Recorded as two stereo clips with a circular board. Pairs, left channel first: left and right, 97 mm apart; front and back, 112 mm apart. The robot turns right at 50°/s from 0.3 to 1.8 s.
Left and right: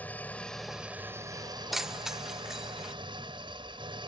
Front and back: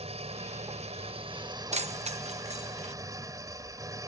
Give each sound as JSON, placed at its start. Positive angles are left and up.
{"t": 0.0, "sound": "an engine running", "azimuth_deg": 165}
{"t": 1.7, "sound": "keys jangling", "azimuth_deg": 180}